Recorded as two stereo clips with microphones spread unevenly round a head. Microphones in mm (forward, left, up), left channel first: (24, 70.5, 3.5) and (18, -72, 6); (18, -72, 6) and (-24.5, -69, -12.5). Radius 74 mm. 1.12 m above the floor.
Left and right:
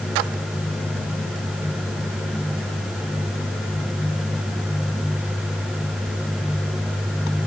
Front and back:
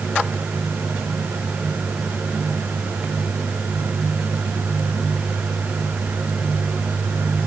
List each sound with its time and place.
Only background noise.